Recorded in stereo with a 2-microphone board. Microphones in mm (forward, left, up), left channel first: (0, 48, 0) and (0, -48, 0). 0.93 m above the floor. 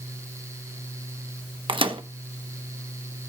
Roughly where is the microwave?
Right.